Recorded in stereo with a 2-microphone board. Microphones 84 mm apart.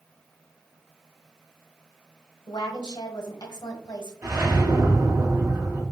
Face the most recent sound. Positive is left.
turn(degrees=-40)  # may be behind; listen again after turning